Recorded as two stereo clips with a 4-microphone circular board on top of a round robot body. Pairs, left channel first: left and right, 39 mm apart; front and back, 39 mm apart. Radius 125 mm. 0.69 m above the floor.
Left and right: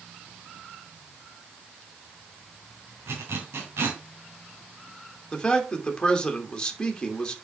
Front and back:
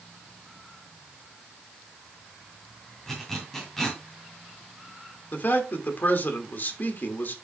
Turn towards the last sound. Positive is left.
turn(degrees=20)